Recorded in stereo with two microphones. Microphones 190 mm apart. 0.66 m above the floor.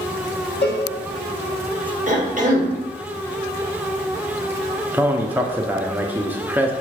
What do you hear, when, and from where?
0.6 s a cowbell: 65° left (ahead or behind), 1.1 m
2.1 s a cough: 45° right (ahead or behind), 1.0 m
4.9 s a man speaking: 10° right (ahead or behind), 0.5 m